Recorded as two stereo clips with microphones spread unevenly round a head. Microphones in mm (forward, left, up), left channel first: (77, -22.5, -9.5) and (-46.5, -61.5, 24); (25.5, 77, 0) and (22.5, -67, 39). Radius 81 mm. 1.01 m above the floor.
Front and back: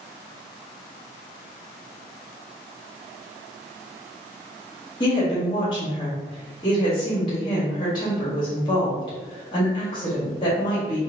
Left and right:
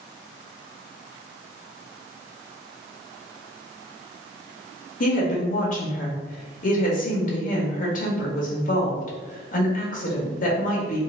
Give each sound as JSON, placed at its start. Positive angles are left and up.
{"t": 5.0, "sound": "a woman speaking", "azimuth_deg": 75, "distance_m": 1.6}